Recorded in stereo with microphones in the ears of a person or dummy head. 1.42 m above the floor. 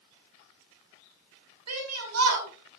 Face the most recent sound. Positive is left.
turn(degrees=-90)